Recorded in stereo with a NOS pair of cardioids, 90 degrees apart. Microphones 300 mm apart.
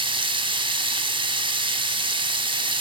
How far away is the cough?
No cough in this recording.